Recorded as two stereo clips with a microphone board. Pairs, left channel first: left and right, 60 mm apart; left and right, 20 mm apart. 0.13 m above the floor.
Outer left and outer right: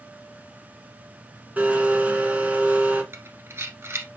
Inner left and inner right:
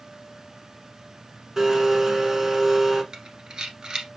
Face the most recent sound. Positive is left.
turn(degrees=-45)  # may be behind; listen again after turning